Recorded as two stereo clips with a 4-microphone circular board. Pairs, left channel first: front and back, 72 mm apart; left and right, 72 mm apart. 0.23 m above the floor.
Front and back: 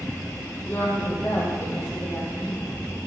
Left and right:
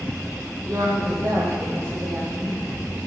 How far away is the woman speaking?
About 7.5 m.